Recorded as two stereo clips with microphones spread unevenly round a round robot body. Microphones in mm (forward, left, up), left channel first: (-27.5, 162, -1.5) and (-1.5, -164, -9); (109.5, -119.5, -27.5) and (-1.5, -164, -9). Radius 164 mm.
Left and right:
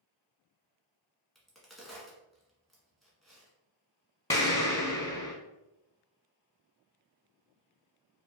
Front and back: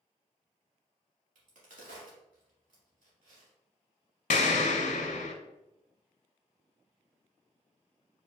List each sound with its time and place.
1.4 s a crack: 175° right, 1.3 m
4.3 s an explosion: 15° left, 0.5 m